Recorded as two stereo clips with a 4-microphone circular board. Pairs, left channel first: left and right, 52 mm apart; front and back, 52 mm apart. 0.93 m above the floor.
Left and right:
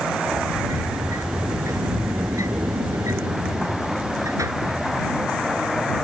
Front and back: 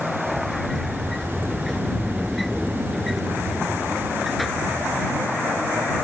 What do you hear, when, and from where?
0.3 s a sliding door: 90° right